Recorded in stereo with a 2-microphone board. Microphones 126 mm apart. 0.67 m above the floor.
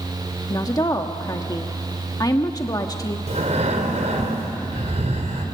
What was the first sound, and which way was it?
A woman speaking, 30° left (ahead or behind).